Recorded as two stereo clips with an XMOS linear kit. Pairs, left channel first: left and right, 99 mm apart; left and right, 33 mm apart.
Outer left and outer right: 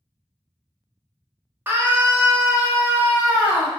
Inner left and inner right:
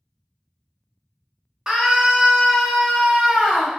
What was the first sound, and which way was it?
A scream, 20° right (ahead or behind).